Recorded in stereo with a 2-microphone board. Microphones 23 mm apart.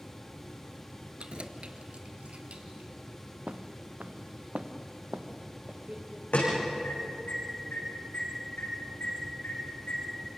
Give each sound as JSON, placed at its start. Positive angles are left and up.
{"t": 1.2, "sound": "keys jangling", "side_deg": -45, "distance_m": 1.4}
{"t": 3.5, "sound": "footsteps", "side_deg": -65, "distance_m": 1.4}
{"t": 6.3, "sound": "an alarm", "side_deg": 75, "distance_m": 10.0}